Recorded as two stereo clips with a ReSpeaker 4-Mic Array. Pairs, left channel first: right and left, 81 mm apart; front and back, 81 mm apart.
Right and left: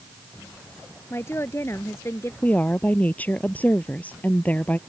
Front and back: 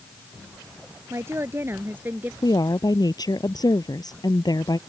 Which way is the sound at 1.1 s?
135° right.